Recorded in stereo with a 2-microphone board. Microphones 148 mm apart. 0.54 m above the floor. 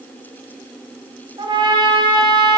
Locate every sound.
1.4 s a trumpet: 30° right (ahead or behind), 0.8 m